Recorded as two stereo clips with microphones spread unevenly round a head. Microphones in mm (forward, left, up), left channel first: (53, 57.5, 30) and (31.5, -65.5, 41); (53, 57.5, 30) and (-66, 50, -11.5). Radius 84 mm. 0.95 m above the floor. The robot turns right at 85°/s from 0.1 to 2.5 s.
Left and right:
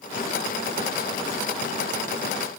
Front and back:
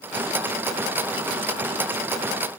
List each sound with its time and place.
Only background noise.